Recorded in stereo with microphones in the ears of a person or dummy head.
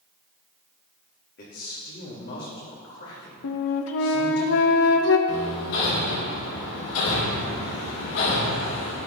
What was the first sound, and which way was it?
A man speaking, 55° left (ahead or behind).